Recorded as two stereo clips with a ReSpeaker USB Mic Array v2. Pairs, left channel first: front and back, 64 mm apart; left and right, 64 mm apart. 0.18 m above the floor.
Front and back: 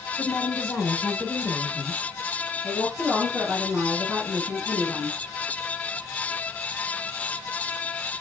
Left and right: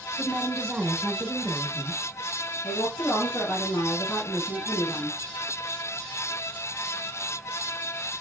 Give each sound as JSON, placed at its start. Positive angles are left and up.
{"t": 0.2, "sound": "a woman speaking", "azimuth_deg": -45, "distance_m": 1.1}
{"t": 2.6, "sound": "a woman speaking", "azimuth_deg": 105, "distance_m": 2.5}